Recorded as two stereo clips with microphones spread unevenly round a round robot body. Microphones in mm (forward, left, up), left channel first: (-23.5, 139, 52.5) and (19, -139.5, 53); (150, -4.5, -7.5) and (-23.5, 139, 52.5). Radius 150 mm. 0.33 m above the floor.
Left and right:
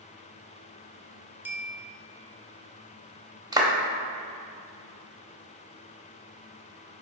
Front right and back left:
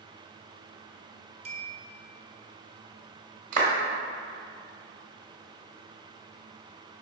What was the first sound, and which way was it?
A bell, 155° right.